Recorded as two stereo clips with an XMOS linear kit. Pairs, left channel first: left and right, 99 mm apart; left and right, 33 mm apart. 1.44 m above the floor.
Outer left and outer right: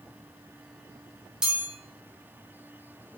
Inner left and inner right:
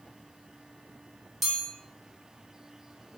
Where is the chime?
10° right (ahead or behind), 1.1 m.